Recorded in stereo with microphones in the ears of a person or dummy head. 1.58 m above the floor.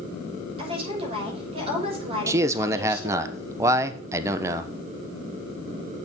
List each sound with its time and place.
0.6 s a woman speaking: 40° right (ahead or behind), 5.5 m
2.3 s a man speaking: 20° right (ahead or behind), 0.9 m